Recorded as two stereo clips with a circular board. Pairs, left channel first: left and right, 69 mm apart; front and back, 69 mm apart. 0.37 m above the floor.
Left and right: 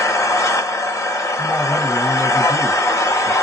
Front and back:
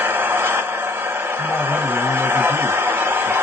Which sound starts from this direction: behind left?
An engine running, at 0.0 s.